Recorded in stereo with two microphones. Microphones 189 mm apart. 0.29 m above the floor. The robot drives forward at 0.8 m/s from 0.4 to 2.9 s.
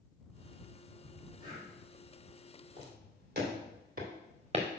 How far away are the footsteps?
About 4 m.